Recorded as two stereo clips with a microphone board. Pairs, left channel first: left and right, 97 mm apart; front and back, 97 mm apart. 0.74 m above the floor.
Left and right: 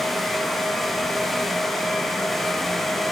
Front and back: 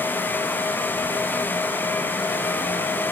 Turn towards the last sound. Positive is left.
No sound to turn to.